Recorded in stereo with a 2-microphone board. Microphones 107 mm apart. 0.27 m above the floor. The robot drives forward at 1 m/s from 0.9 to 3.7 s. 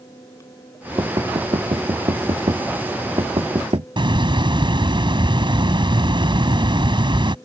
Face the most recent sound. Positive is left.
turn(degrees=-50)  # may be behind; listen again after turning